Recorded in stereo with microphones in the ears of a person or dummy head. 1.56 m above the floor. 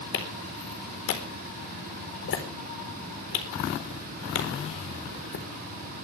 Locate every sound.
0.1 s a clap: 80° left, 4 m